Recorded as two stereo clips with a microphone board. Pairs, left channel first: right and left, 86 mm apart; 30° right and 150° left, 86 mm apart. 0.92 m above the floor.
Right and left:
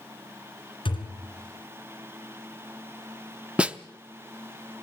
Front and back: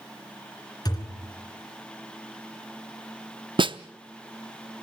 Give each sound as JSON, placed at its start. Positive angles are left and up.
{"t": 0.8, "sound": "a thud", "azimuth_deg": -75, "distance_m": 2.5}
{"t": 3.6, "sound": "a snare drum", "azimuth_deg": 165, "distance_m": 0.7}